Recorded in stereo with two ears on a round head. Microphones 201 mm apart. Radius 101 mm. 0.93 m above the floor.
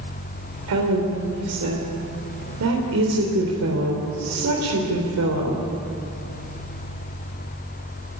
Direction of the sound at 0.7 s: 80° right.